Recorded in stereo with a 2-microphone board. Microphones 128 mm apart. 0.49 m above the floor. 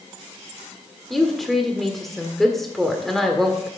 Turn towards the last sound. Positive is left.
turn(degrees=0)  # may be behind; listen again after turning